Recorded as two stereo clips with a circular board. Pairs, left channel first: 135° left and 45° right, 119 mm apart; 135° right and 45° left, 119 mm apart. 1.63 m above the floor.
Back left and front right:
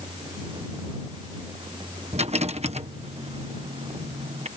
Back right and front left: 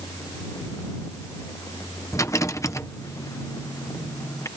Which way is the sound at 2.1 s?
70° right.